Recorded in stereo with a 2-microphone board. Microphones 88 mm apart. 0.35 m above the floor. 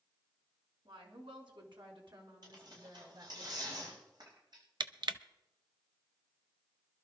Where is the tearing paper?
60° right (ahead or behind), 8 m.